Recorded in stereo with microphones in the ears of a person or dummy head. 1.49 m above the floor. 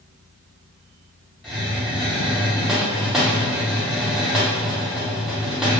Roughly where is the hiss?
Centre.